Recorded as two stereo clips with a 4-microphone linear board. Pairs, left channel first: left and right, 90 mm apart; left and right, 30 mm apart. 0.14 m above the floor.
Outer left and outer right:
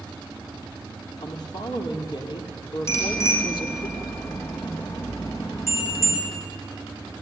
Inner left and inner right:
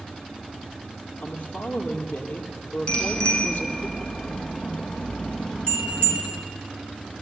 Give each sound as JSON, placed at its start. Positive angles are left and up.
{"t": 1.2, "sound": "a woman speaking", "side_deg": 50, "distance_m": 3.5}
{"t": 2.9, "sound": "a bicycle bell", "side_deg": 30, "distance_m": 5.0}